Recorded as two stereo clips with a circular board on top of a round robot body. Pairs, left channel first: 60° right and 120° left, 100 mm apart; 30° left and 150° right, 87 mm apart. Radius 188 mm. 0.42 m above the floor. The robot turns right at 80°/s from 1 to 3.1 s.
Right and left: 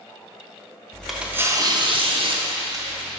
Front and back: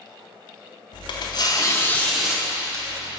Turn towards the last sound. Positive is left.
turn(degrees=-170)